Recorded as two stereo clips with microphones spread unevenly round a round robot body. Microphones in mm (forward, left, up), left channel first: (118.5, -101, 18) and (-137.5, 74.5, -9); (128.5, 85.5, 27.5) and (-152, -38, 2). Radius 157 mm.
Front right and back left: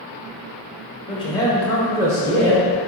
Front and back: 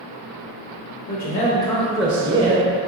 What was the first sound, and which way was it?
A man speaking, 25° left.